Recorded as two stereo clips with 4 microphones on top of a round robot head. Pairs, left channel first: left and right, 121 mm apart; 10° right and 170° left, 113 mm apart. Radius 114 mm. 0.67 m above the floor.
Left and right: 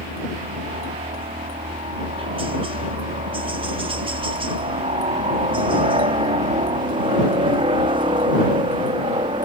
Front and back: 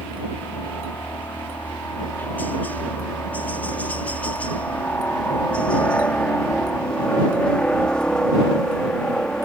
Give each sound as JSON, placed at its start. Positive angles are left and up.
{"t": 0.0, "sound": "a helicopter", "azimuth_deg": -80}